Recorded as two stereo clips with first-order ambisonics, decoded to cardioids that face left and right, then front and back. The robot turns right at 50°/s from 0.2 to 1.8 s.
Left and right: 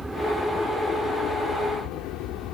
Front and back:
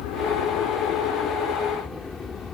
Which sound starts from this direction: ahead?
An aircraft, at 0.0 s.